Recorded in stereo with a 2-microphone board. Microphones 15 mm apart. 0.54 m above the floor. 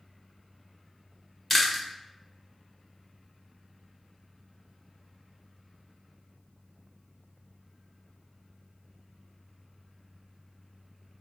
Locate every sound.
1.5 s chewing: 15° left (ahead or behind), 1.0 m